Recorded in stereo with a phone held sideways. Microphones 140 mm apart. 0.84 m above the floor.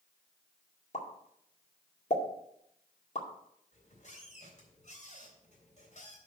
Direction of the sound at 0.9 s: 55° left (ahead or behind).